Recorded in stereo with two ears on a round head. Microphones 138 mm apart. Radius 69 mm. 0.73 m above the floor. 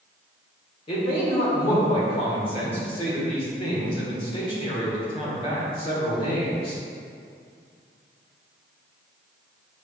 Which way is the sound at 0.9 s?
40° left (ahead or behind).